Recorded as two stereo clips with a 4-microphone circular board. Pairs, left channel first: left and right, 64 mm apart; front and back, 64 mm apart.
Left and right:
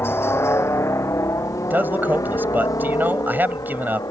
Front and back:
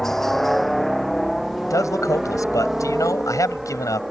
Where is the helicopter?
80° left; by 4.1 s 95° left.